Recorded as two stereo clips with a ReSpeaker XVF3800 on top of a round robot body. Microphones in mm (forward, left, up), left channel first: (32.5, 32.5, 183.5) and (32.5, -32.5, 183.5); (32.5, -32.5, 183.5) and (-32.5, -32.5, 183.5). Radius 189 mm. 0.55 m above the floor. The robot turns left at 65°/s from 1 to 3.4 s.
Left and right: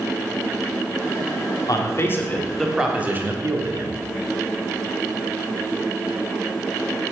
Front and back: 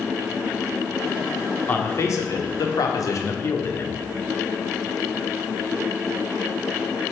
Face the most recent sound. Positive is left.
turn(degrees=-45)